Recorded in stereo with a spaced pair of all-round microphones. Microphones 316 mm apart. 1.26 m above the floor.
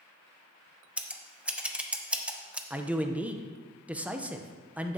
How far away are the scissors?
About 0.6 m.